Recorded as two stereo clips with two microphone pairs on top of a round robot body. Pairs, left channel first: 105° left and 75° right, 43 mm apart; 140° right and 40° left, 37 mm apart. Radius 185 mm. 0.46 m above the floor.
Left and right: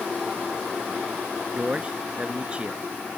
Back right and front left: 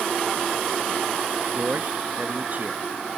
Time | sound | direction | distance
1.6 | a man speaking | 10° right | ?